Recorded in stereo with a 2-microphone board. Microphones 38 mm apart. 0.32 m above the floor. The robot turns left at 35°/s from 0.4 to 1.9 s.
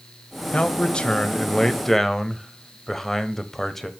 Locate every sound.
0.5 s a man speaking: 60° left, 1.0 m; by 3.9 s 10° left, 1.0 m